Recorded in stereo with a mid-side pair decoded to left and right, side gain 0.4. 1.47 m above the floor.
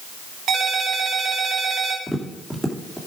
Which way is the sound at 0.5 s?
70° right.